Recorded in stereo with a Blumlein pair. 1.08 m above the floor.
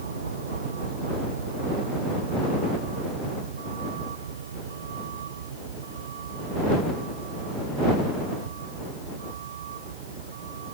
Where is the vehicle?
70° right; by 10.8 s 60° right.